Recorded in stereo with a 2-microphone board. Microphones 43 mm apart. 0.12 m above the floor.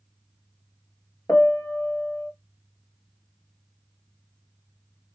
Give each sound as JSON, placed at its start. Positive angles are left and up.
{"t": 1.3, "sound": "a piano", "side_deg": 55, "distance_m": 0.5}